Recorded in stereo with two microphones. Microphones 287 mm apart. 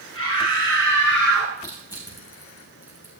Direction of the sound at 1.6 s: 15° left (ahead or behind).